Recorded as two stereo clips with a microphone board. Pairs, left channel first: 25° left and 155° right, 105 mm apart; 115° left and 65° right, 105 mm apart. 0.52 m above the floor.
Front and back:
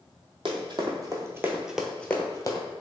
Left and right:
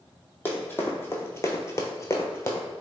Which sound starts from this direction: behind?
Running footsteps, at 0.5 s.